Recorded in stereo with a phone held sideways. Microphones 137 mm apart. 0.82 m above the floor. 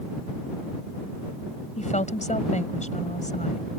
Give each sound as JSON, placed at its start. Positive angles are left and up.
{"t": 1.8, "sound": "a woman speaking", "side_deg": 60}